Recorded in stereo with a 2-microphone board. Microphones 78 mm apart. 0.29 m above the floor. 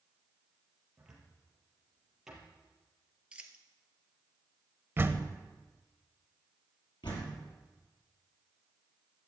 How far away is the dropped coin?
About 1.2 m.